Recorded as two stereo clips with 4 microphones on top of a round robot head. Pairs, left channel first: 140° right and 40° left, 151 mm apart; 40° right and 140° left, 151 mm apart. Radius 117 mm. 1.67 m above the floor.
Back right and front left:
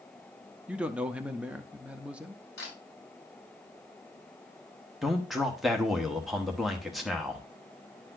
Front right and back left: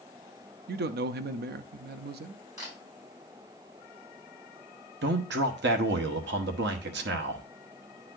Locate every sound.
0.7 s a man speaking: 125° left, 0.6 m
2.6 s a camera shutter: 155° right, 5.5 m
5.0 s a man speaking: 130° left, 0.9 m